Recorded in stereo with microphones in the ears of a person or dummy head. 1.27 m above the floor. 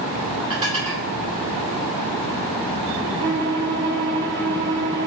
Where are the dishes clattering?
30° right (ahead or behind), 2.5 m.